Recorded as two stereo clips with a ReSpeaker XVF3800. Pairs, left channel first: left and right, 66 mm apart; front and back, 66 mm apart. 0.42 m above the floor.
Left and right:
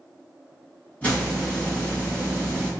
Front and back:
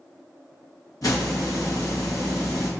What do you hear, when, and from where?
1.0 s a hiss: 20° left, 1.8 m